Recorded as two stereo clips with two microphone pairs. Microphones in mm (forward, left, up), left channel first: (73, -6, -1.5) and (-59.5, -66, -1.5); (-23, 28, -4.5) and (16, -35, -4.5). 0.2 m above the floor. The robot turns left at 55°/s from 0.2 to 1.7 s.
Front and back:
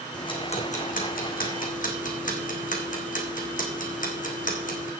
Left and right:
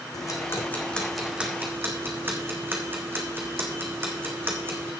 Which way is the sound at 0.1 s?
85° left.